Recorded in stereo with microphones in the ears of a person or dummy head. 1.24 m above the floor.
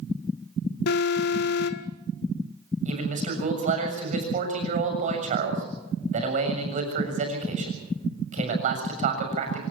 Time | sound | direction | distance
0.9 | an alarm | 65° left (ahead or behind) | 1.4 m
2.9 | a man speaking | 45° right (ahead or behind) | 7 m